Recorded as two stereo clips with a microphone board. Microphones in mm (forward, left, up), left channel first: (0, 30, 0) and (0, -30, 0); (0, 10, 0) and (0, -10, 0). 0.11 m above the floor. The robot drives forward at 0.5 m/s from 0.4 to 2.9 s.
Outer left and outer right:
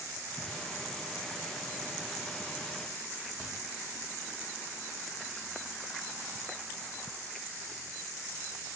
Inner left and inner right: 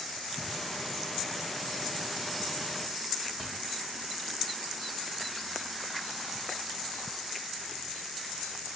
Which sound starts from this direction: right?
A thud, at 3.4 s.